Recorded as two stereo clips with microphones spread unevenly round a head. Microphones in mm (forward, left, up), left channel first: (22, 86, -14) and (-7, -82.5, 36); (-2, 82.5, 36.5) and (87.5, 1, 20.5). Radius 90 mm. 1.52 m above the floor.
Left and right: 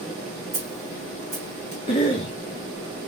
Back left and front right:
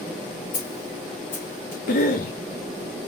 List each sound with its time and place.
0.5 s a snare drum: 175° right, 2.5 m
1.9 s a cough: 140° left, 0.8 m